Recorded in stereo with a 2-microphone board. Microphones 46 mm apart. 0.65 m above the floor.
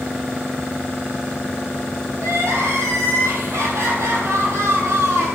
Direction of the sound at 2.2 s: 80° right.